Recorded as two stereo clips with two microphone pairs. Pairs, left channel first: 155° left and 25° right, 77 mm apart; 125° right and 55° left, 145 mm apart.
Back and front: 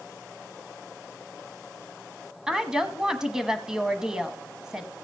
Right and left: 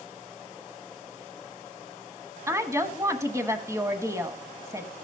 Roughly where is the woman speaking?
Ahead left.